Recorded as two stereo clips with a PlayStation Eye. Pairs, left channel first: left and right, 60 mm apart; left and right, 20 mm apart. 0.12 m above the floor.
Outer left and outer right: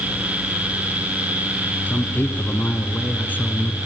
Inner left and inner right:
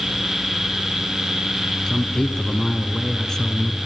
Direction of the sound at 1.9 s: 30° left (ahead or behind).